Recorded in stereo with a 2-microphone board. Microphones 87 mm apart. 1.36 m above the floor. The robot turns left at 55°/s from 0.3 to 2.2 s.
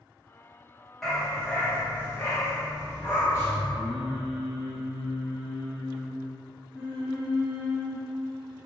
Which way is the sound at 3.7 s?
75° left (ahead or behind).